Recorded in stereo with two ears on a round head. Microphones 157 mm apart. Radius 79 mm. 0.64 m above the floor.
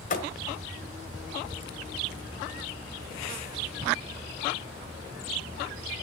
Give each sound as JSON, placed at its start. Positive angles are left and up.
{"t": 0.1, "sound": "a thud", "side_deg": 45, "distance_m": 1.5}